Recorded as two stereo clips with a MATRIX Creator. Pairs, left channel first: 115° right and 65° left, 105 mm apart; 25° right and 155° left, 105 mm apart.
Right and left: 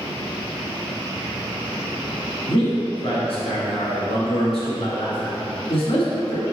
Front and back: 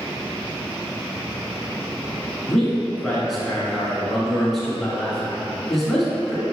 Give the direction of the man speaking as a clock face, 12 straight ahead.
4 o'clock.